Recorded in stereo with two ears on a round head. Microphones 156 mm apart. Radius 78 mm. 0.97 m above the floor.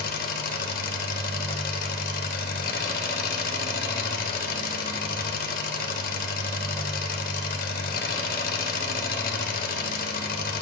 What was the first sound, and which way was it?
An engine running, 55° left (ahead or behind).